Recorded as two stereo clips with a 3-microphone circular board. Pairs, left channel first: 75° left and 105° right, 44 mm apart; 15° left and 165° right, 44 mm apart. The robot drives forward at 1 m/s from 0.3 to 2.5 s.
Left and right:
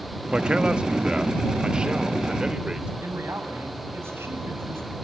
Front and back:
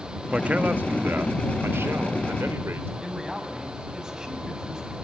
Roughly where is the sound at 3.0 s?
Right.